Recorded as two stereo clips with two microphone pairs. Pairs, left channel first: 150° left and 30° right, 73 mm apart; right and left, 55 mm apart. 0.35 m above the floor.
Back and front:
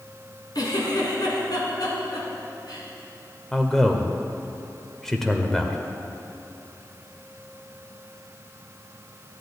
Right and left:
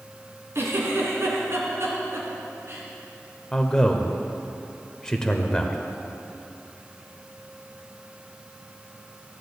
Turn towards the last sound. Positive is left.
turn(degrees=-135)